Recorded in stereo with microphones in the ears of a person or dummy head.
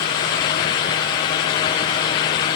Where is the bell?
No bell in this recording.